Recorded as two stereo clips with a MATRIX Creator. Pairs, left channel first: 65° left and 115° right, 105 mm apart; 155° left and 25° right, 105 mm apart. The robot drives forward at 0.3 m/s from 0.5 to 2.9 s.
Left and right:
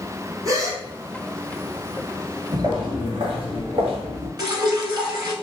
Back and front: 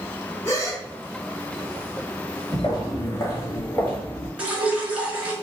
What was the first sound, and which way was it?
A gasp, 145° right.